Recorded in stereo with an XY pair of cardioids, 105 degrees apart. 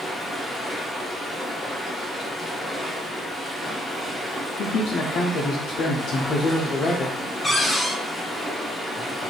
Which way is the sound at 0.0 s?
5° left.